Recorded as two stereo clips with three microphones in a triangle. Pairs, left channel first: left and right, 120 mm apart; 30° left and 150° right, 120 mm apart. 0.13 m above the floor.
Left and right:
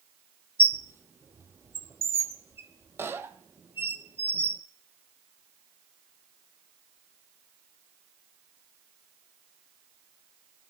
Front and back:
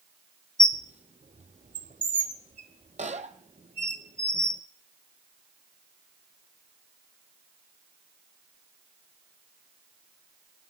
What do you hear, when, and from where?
0.6 s a squeak: 165° right, 0.8 m